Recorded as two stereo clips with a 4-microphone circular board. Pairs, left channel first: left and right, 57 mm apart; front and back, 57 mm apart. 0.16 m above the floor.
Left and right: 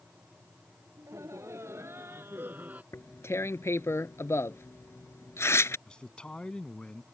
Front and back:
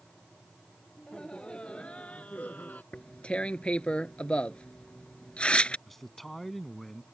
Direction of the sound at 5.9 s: 75° left.